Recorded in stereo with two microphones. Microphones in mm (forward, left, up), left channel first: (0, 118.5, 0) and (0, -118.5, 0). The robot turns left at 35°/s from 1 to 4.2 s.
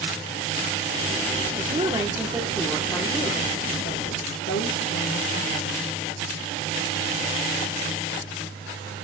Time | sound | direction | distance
1.6 | a woman speaking | 145° right | 2 m